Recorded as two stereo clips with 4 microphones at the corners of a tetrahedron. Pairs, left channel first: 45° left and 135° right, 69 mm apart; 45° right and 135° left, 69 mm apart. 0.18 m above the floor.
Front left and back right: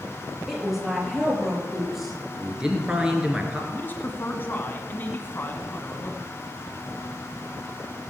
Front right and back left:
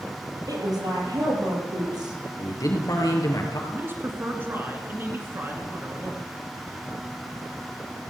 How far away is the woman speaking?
About 4.5 m.